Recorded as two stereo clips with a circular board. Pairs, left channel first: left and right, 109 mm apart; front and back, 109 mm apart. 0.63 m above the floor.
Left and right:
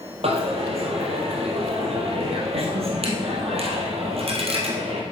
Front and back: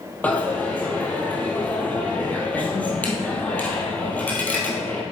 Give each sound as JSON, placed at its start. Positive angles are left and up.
{"t": 0.2, "sound": "a dropped coin", "azimuth_deg": -75, "distance_m": 1.8}